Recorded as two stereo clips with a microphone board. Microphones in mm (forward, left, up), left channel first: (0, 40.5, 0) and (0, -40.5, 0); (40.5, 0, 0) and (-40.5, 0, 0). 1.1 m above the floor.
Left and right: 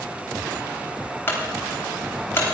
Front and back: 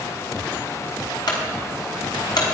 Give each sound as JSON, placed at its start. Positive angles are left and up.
{"t": 1.3, "sound": "a clunk", "azimuth_deg": 30, "distance_m": 4.0}